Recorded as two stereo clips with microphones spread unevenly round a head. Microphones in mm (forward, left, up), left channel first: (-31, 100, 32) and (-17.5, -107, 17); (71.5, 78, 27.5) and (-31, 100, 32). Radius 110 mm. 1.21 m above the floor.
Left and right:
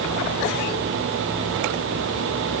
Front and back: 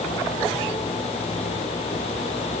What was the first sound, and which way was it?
Only background noise.